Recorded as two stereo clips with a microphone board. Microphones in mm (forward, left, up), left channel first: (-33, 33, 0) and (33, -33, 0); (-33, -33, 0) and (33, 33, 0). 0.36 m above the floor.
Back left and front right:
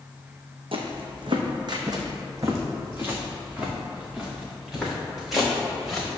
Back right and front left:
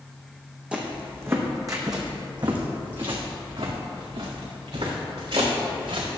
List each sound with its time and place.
0.7 s footsteps: 30° right, 1.4 m; by 6.1 s 45° left, 3.5 m